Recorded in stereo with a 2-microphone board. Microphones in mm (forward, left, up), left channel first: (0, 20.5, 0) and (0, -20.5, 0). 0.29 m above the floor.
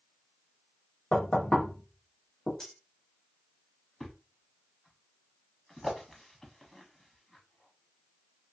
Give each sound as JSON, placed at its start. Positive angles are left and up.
{"t": 1.1, "sound": "knocking", "side_deg": 35, "distance_m": 1.1}
{"t": 2.6, "sound": "cutlery clinking", "side_deg": 15, "distance_m": 0.9}
{"t": 4.0, "sound": "a thud", "side_deg": 10, "distance_m": 0.8}